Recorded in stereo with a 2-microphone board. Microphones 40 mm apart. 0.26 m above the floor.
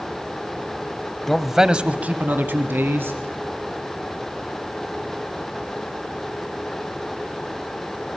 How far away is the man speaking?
About 1.1 m.